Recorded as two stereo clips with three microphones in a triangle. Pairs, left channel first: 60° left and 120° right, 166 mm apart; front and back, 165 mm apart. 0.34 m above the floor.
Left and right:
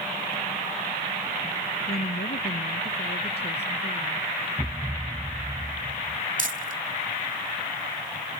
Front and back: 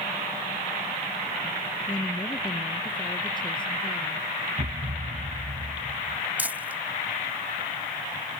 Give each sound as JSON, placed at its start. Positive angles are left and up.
{"t": 1.9, "sound": "a woman speaking", "azimuth_deg": 65}
{"t": 4.6, "sound": "a thud", "azimuth_deg": 160}
{"t": 6.4, "sound": "crumpling", "azimuth_deg": -100}